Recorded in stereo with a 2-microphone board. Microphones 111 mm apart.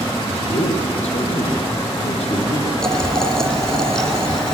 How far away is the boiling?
About 1.6 m.